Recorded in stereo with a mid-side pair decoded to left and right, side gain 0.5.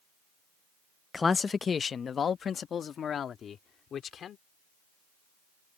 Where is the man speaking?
25° left; by 4.4 s 50° left.